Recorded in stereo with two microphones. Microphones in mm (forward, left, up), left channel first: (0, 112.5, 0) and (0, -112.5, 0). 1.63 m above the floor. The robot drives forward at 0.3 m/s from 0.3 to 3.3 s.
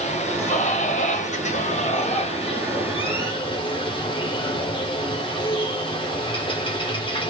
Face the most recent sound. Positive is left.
turn(degrees=20)  # may be behind; listen again after turning